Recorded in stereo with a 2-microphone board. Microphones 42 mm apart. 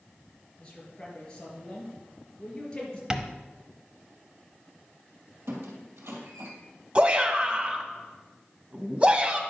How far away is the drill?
I don't hear a drill.